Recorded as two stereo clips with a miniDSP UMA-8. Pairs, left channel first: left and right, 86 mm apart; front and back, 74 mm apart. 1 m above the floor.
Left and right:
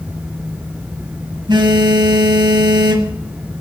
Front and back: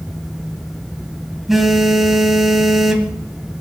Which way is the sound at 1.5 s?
90° right.